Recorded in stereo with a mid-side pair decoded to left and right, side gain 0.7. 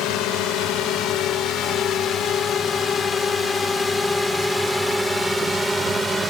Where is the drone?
60° left; by 6.3 s 15° right.